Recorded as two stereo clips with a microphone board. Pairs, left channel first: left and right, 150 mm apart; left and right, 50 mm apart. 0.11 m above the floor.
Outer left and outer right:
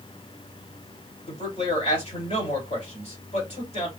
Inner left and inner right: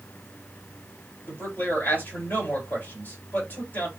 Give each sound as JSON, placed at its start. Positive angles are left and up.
{"t": 1.3, "sound": "a man speaking", "side_deg": 45, "distance_m": 3.0}